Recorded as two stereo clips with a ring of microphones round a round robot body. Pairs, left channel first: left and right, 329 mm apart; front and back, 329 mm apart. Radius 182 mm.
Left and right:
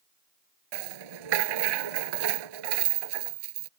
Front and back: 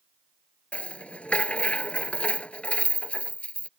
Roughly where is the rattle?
Right.